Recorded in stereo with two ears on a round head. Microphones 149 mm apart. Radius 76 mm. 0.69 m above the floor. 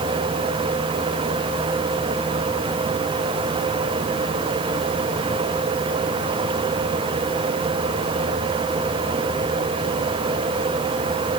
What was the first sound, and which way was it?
Only background noise.